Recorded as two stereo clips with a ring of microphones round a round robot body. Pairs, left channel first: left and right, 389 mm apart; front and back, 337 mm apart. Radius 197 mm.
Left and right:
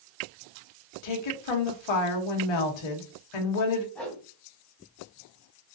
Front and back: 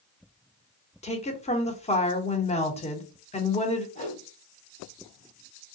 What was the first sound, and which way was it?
A woman speaking, 70° left.